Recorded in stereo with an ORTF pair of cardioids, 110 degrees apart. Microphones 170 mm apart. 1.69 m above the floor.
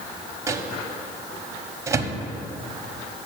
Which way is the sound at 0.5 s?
15° right.